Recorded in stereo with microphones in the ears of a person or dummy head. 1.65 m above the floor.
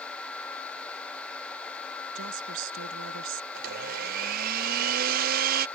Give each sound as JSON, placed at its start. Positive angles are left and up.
{"t": 2.1, "sound": "a woman speaking", "side_deg": -70}
{"t": 3.5, "sound": "a blender", "side_deg": -50}